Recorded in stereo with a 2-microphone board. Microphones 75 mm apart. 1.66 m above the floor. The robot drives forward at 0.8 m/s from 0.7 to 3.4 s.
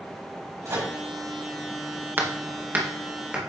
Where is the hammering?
30° right (ahead or behind), 0.9 m; by 3.5 s 15° right (ahead or behind), 1.5 m.